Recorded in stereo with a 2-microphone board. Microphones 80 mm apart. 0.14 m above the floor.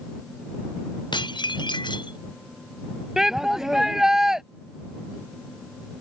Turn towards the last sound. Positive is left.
turn(degrees=-5)  # may be behind; listen again after turning